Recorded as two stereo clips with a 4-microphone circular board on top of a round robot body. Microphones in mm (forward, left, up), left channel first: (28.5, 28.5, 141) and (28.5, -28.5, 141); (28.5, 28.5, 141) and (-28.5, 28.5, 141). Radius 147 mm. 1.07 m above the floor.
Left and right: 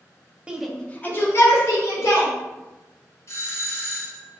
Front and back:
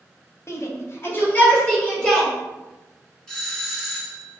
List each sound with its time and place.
0.5 s a shout: 20° right, 1.0 m; by 2.3 s 70° left, 3 m
3.3 s a doorbell: 75° left, 1.9 m